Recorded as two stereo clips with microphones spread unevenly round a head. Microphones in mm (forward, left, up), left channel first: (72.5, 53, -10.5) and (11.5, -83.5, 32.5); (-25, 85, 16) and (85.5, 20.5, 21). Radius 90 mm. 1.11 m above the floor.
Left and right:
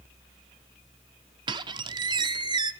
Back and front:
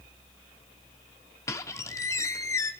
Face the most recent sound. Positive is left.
turn(degrees=-140)